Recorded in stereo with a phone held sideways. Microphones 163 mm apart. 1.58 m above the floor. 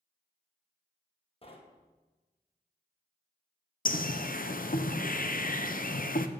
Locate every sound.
1.4 s knocking: 35° left (ahead or behind), 1.2 m
3.9 s a bird: 60° left (ahead or behind), 0.6 m